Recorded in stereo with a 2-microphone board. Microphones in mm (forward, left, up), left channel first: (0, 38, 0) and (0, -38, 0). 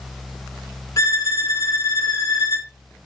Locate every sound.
1.0 s a violin: 45° left (ahead or behind), 1.3 m